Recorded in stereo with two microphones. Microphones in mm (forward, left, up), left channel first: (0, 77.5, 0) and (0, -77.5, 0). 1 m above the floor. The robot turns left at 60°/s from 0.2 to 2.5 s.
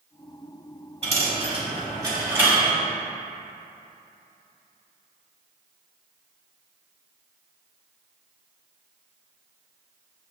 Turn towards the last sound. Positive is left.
turn(degrees=-10)  # may be behind; listen again after turning